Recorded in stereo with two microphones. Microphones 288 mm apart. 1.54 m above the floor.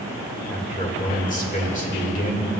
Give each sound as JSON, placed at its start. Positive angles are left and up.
{"t": 0.5, "sound": "a man speaking", "side_deg": 25, "distance_m": 1.7}